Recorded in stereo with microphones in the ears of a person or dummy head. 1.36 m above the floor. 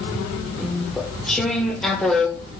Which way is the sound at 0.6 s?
Centre (ahead or behind).